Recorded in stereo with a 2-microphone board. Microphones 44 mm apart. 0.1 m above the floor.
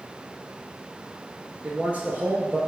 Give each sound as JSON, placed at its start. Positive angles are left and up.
{"t": 1.6, "sound": "a man speaking", "side_deg": -35, "distance_m": 2.0}